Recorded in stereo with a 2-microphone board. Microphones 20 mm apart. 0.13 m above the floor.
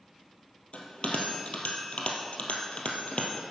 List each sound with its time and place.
0.7 s a bell: 70° left (ahead or behind), 1.9 m